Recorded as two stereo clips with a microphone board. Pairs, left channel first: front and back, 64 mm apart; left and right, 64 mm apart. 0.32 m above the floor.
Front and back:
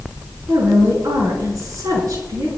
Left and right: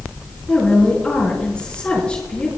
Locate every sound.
0.5 s a woman speaking: 165° left, 5 m